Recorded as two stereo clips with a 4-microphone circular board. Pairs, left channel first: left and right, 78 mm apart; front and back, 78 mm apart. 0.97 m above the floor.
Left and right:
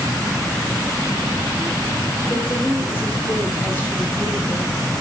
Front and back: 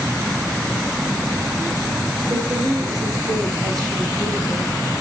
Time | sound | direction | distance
2.3 | a woman speaking | 150° left | 4.5 m